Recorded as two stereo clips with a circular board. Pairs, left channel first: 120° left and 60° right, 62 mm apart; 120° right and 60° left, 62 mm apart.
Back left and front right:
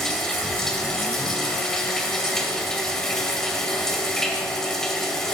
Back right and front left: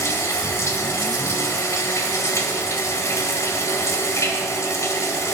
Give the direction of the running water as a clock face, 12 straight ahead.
5 o'clock.